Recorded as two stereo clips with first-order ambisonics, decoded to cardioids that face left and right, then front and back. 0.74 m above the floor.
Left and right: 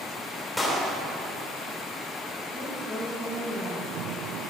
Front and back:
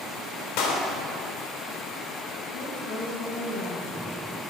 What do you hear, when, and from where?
0.6 s a clap: 5° left, 2.5 m
2.5 s a woman speaking: 15° right, 3 m